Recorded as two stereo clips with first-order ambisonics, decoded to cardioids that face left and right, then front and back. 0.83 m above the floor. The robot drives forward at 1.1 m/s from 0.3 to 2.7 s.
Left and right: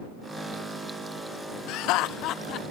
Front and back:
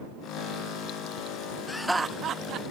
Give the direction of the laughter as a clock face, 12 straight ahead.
10 o'clock.